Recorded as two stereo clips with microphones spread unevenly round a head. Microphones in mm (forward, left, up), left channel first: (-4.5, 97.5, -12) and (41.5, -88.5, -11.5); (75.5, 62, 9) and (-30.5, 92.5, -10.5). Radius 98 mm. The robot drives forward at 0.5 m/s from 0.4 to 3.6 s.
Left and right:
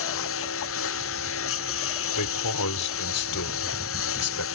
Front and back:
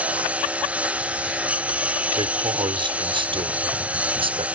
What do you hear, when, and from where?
0.0 s a lawn mower: 85° left
2.1 s a man speaking: 115° left; by 4.5 s 125° left